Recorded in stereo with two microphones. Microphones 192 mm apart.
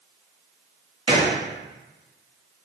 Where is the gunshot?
30° right (ahead or behind), 0.8 m.